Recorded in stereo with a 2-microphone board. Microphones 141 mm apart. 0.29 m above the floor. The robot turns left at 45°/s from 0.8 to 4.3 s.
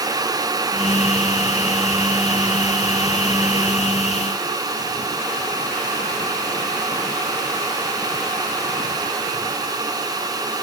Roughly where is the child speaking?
No child speaking in this recording.